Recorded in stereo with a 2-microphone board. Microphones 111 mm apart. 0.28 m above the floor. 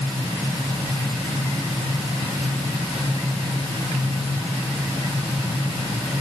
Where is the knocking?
I don't hear knocking.